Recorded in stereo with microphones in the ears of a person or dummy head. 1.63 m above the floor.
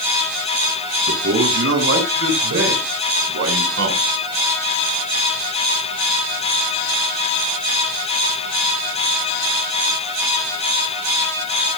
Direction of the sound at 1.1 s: 80° right.